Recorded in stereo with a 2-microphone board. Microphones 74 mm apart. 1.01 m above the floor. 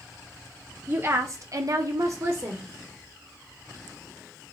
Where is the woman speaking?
30° right (ahead or behind), 0.7 m.